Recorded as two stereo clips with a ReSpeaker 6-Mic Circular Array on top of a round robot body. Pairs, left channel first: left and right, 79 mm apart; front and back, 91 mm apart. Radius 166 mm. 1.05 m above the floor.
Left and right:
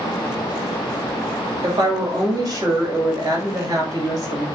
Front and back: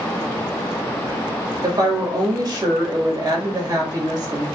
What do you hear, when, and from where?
1.6 s a woman speaking: 135° right, 2.0 m